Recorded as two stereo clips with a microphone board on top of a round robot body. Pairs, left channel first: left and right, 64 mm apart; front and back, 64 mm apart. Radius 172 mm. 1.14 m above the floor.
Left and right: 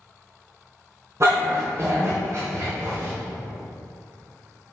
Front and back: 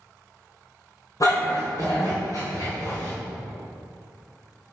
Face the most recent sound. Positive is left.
turn(degrees=-40)